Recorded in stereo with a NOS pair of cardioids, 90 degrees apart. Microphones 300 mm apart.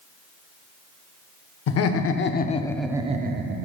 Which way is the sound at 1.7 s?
65° left.